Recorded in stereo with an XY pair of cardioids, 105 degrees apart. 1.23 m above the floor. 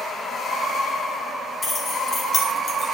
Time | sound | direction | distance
1.6 | keys jangling | 45° left | 3.5 m